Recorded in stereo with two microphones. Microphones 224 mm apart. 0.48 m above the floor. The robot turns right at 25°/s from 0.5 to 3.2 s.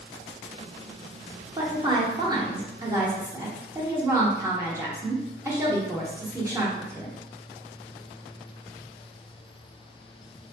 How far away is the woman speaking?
About 0.8 m.